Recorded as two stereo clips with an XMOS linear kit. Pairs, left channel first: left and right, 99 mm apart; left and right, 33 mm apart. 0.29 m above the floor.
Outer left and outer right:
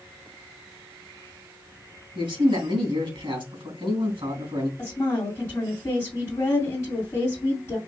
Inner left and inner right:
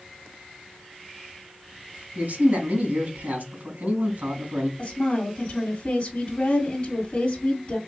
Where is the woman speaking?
30° left (ahead or behind), 2.0 m.